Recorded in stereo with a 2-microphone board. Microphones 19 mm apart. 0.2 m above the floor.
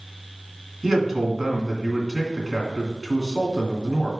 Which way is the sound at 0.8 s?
10° right (ahead or behind).